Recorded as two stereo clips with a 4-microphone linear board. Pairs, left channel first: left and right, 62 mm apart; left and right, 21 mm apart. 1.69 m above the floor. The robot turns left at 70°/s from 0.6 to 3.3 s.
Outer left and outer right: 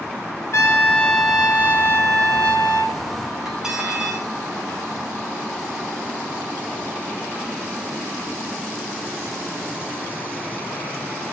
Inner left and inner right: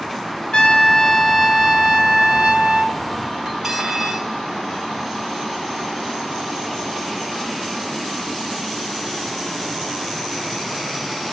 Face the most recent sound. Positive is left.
turn(degrees=-10)  # may be behind; listen again after turning